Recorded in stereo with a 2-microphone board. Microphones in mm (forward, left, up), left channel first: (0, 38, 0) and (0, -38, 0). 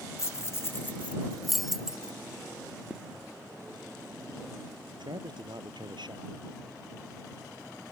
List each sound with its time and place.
0.2 s keys jangling: 35° left (ahead or behind); by 2.1 s 10° right (ahead or behind)
2.9 s footsteps: 10° right (ahead or behind)
4.9 s a man speaking: 80° right